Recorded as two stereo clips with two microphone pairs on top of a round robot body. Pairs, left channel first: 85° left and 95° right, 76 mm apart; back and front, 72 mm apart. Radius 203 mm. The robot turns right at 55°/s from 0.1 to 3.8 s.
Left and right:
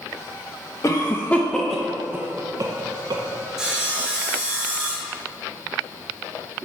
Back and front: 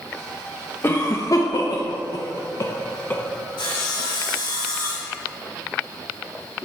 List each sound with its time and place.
0.8 s a cough: 125° left, 0.8 m; by 3.2 s 105° right, 0.8 m
3.6 s sawing: straight behind, 1.1 m; by 5.2 s 165° right, 1.1 m